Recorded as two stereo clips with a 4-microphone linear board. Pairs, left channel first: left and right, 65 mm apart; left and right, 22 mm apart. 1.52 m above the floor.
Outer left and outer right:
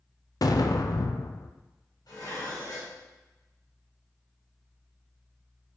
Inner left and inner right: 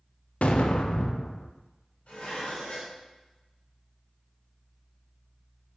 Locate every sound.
0.4 s an explosion: 65° left (ahead or behind), 0.7 m
2.1 s dishes clattering: 80° left, 3.5 m